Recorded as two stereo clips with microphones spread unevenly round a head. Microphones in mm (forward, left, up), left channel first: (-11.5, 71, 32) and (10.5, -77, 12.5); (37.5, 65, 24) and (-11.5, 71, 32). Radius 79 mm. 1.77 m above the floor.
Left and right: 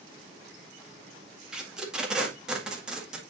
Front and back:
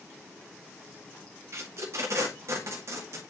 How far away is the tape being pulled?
About 1.7 m.